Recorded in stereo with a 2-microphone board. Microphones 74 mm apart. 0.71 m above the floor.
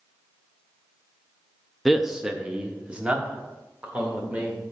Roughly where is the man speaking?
Centre.